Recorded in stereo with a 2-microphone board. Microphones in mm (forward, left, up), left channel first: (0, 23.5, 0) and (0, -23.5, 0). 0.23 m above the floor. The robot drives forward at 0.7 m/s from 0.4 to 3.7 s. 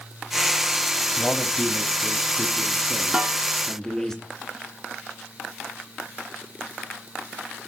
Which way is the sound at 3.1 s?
20° right (ahead or behind).